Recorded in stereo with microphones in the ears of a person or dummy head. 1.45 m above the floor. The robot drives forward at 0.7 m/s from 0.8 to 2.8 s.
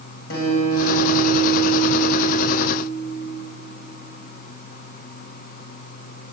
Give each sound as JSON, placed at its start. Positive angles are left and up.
{"t": 0.3, "sound": "a guitar", "side_deg": 60, "distance_m": 5.0}